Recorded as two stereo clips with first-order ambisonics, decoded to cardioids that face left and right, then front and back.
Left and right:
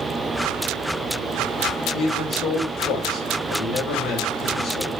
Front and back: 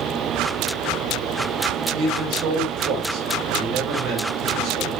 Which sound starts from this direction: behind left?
A man speaking, at 1.9 s.